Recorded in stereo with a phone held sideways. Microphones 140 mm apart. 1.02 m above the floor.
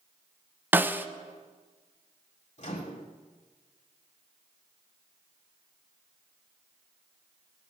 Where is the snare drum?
15° right (ahead or behind), 0.6 m.